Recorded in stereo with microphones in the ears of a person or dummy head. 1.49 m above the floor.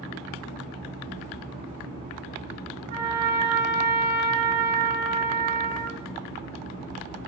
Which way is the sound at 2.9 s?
50° right (ahead or behind).